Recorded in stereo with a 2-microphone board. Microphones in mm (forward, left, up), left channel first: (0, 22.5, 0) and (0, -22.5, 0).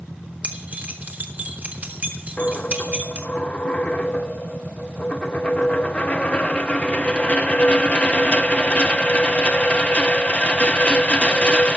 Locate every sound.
0.4 s keys jangling: 40° right (ahead or behind), 1.5 m
2.4 s a dropped coin: 25° left (ahead or behind), 0.6 m